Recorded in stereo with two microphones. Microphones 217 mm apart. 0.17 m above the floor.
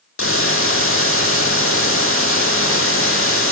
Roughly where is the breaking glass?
No breaking glass in this recording.